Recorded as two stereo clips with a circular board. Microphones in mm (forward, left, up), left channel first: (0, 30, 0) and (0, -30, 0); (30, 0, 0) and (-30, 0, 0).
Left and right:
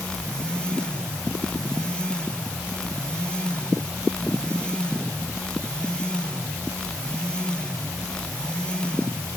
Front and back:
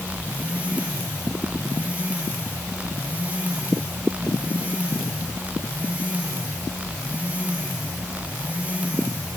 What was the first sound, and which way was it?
Only background noise.